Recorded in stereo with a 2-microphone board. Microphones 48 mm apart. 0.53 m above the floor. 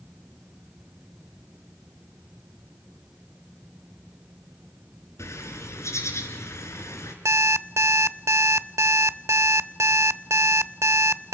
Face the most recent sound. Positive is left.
turn(degrees=-80)